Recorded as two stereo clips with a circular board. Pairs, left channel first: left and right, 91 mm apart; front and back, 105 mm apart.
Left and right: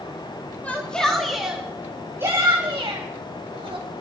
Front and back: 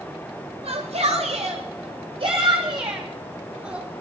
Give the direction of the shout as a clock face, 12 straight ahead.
6 o'clock.